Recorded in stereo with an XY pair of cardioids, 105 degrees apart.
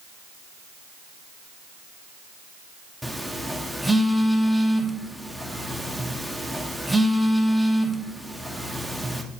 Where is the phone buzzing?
5° right, 1.0 m.